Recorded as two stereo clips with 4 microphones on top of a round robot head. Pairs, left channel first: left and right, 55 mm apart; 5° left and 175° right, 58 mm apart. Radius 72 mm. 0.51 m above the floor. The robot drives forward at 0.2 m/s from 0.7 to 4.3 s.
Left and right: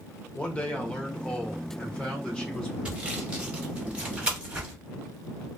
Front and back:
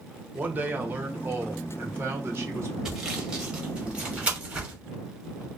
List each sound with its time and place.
0.3 s a man speaking: 145° left, 0.9 m; by 2.8 s 160° left, 1.1 m
2.9 s sawing: 115° right, 1.1 m; by 4.7 s 140° right, 1.2 m